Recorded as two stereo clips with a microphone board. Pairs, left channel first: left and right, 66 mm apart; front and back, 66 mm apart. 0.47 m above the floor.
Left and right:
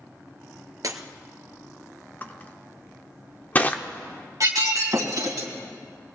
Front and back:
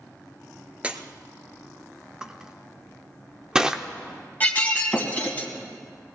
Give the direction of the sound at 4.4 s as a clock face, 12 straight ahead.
2 o'clock.